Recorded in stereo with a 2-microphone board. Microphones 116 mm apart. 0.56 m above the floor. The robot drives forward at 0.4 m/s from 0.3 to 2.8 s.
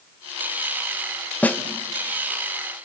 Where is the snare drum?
15° left (ahead or behind), 1.5 m.